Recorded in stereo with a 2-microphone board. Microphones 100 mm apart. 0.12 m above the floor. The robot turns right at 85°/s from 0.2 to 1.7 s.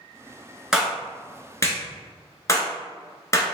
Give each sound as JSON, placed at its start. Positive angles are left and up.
{"t": 0.7, "sound": "a clap", "side_deg": -5, "distance_m": 0.9}